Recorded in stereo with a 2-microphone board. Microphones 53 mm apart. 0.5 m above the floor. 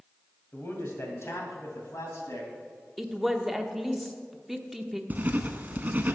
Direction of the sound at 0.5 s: 40° left (ahead or behind).